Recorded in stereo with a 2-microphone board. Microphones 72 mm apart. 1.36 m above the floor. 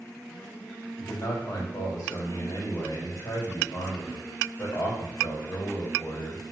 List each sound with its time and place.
1.0 s a man speaking: 60° left (ahead or behind), 3.5 m